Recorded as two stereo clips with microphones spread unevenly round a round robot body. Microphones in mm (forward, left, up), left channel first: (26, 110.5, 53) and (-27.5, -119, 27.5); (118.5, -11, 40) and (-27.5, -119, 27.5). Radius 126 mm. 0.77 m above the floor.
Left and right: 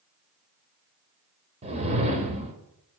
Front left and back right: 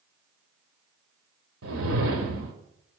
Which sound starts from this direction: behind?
A whoosh, at 1.6 s.